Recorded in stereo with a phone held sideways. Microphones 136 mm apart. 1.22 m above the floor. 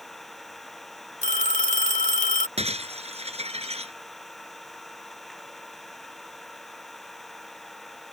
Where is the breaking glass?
50° right (ahead or behind).